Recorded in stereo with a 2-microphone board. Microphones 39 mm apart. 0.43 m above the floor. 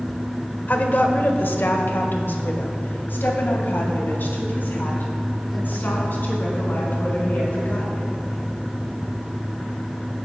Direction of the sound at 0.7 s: 50° left (ahead or behind).